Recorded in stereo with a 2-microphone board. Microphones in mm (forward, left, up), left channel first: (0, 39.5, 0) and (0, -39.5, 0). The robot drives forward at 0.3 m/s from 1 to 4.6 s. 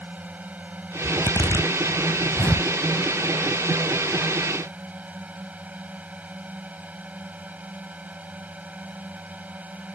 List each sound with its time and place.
0.0 s a drone: 20° right (ahead or behind)
1.0 s a zipper: 85° left; by 2.7 s 65° left (ahead or behind)